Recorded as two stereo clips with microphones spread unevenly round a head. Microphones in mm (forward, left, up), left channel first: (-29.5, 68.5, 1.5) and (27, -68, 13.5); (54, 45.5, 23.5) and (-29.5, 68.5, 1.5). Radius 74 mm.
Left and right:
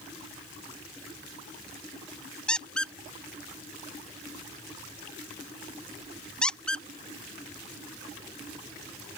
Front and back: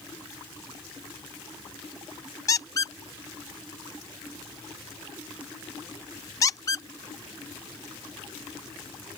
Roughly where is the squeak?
Ahead left.